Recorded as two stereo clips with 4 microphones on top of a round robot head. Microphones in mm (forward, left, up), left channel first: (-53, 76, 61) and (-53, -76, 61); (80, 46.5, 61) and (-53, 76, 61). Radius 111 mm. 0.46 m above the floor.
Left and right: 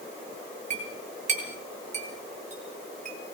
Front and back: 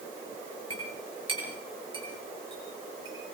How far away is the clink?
About 6.5 m.